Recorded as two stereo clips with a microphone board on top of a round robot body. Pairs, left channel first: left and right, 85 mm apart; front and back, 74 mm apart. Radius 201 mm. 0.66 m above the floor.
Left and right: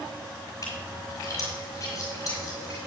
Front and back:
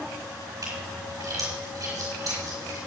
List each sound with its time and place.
0.6 s a splash: 140° left, 5 m